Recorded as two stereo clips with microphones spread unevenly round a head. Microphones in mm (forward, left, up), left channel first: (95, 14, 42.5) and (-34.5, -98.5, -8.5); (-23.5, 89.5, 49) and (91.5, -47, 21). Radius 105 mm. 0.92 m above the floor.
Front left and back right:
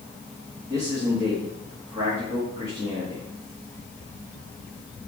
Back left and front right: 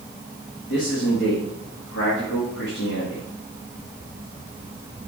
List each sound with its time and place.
0.7 s a man speaking: 155° left, 2.0 m